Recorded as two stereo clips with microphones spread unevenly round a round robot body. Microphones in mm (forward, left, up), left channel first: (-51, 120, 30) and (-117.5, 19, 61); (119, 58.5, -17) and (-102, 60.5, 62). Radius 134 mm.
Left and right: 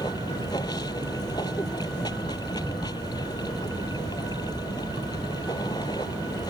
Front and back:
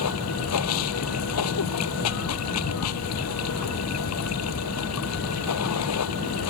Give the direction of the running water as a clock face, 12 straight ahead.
1 o'clock.